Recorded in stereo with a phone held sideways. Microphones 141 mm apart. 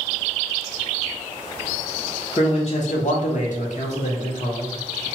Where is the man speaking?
35° left (ahead or behind), 0.5 m; by 5.1 s 45° left (ahead or behind), 1.4 m.